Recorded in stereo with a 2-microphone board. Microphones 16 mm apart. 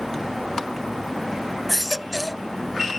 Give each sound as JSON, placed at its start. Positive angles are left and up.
{"t": 1.7, "sound": "a baby crying", "side_deg": 0}